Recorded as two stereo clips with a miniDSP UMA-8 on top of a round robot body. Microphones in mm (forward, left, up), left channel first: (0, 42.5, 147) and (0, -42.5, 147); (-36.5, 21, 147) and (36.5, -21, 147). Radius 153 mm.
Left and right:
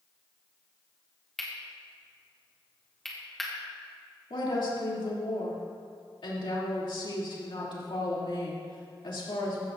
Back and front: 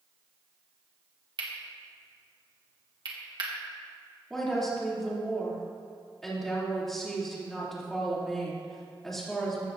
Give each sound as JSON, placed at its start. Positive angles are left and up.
{"t": 1.4, "sound": "cutlery clinking", "azimuth_deg": 5, "distance_m": 1.8}
{"t": 4.3, "sound": "a woman speaking", "azimuth_deg": 65, "distance_m": 3.0}